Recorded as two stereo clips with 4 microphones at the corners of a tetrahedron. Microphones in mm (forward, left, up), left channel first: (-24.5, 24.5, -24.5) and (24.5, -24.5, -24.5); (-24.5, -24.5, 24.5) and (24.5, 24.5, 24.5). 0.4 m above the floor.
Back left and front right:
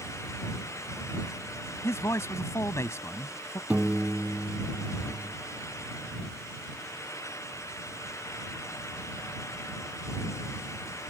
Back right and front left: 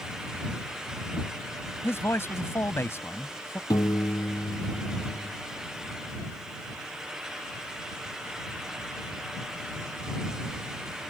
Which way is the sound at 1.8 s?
175° left.